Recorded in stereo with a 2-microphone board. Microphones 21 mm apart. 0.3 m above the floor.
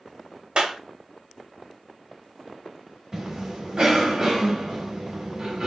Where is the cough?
30° right (ahead or behind), 1.4 m.